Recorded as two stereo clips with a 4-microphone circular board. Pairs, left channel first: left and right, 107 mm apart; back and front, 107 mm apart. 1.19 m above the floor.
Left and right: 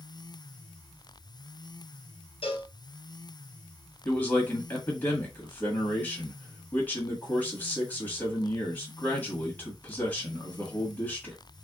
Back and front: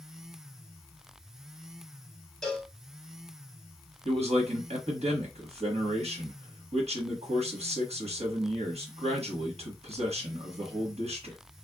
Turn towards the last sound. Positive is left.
turn(degrees=15)